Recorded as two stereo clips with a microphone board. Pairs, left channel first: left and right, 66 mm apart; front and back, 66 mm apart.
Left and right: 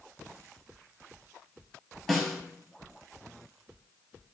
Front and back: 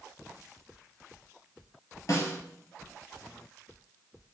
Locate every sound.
2.1 s a snare drum: 5° left, 2.5 m